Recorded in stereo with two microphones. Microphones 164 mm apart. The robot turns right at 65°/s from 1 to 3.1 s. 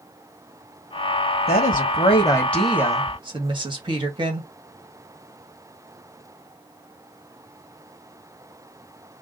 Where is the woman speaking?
105° left, 2 m; by 4.5 s 150° right, 2 m.